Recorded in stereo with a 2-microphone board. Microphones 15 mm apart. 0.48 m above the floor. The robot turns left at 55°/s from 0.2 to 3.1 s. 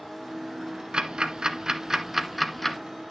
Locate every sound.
0.9 s ticking: 75° right (ahead or behind), 1.0 m; by 2.8 s 20° left (ahead or behind), 1.0 m